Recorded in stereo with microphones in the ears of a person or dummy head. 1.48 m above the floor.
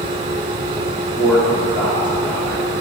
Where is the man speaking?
10° left (ahead or behind), 2.5 m.